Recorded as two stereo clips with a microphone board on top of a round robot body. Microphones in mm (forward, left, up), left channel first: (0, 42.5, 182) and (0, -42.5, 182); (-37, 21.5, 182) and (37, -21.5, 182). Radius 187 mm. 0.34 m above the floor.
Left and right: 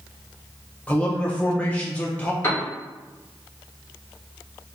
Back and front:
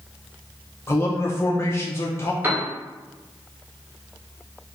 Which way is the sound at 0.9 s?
150° left.